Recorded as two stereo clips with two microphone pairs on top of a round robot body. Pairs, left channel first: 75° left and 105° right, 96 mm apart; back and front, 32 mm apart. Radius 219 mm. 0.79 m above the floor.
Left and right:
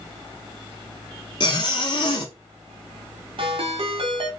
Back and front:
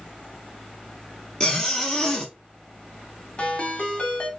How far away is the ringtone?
About 2 m.